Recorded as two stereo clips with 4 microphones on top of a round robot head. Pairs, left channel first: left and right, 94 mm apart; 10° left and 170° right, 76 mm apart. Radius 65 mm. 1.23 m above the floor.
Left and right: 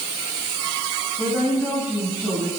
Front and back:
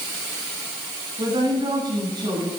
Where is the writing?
I don't hear writing.